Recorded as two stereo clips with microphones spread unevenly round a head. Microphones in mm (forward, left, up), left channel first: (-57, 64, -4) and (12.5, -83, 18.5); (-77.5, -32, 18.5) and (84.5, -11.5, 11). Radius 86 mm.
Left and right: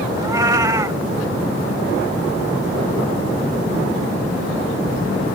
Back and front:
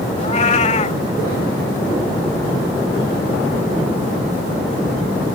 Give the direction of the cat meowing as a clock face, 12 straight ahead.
4 o'clock.